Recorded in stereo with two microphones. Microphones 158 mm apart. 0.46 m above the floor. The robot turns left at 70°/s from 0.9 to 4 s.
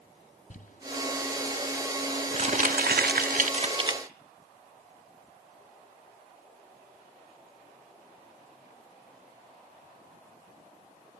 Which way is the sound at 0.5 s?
55° left (ahead or behind).